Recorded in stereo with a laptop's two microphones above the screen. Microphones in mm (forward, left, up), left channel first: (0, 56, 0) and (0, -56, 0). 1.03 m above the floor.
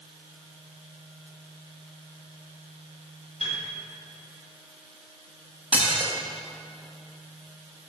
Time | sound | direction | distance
3.4 | a piano | 65° left (ahead or behind) | 1.7 m
5.7 | dishes clattering | 10° right (ahead or behind) | 0.7 m